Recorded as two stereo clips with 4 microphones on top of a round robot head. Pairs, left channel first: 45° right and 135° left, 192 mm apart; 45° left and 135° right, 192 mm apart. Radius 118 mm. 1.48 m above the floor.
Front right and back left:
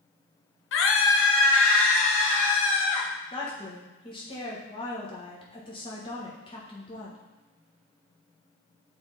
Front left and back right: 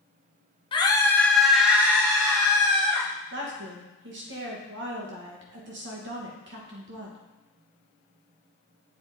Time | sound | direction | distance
0.7 | a scream | 25° right | 1.0 m
3.3 | a woman speaking | 110° right | 1.4 m